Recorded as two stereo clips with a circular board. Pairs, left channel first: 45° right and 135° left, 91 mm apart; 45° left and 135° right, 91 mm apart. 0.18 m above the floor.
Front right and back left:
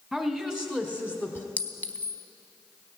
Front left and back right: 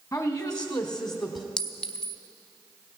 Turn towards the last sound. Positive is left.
turn(degrees=-20)